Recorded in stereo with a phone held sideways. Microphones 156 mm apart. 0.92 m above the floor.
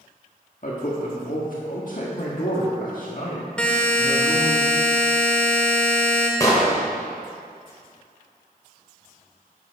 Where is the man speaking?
60° left (ahead or behind), 1.5 m.